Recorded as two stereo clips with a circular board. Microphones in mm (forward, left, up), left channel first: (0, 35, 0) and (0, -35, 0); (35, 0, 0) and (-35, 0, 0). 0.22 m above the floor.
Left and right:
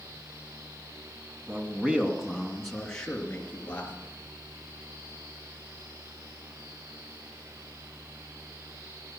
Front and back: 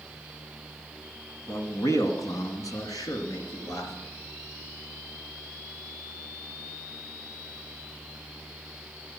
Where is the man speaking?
35° right, 2 m; by 3.9 s 25° left, 4 m.